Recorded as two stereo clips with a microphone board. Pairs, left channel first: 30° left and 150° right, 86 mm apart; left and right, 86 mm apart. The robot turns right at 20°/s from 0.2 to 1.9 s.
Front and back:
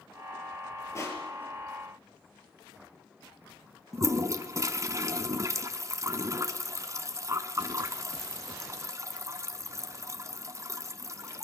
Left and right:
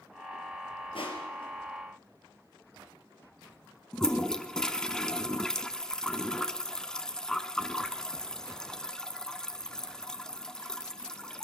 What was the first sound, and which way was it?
Crushing, 85° left.